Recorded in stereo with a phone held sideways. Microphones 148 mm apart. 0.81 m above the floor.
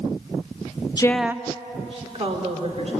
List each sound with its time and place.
1.0 s a woman speaking: 30° left (ahead or behind), 0.6 m; by 2.9 s 45° right (ahead or behind), 3 m